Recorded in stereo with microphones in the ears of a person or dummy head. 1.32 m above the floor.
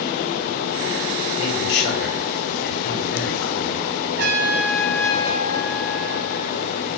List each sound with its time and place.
1.4 s a man speaking: 65° left (ahead or behind), 5.5 m
4.2 s a trumpet: 55° right (ahead or behind), 4 m